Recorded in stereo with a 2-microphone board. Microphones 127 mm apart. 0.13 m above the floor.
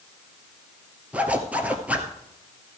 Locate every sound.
1.1 s a zipper: 10° right (ahead or behind), 1.4 m